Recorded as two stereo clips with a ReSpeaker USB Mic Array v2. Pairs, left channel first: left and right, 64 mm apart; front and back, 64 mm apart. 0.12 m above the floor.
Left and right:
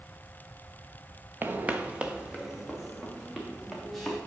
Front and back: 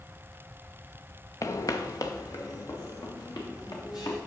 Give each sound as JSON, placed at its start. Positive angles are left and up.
{"t": 1.4, "sound": "footsteps", "azimuth_deg": -30, "distance_m": 0.8}